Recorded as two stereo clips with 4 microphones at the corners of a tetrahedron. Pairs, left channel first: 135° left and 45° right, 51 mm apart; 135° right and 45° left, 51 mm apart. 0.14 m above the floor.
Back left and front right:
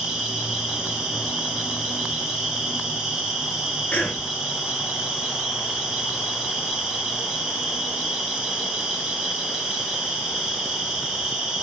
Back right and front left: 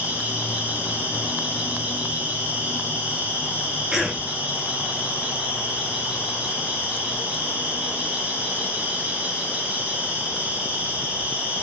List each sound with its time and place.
0.0 s an insect: 20° left, 1.5 m
3.9 s a cough: 110° left, 1.2 m